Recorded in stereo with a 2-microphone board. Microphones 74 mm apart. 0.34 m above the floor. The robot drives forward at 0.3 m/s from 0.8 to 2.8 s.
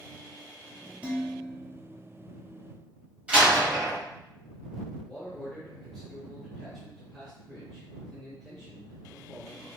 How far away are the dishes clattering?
About 0.7 m.